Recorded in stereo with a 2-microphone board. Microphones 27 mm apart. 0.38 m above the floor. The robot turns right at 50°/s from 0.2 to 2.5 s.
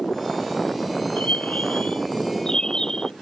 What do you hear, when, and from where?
1.2 s a bird: 90° left; by 3.1 s 155° left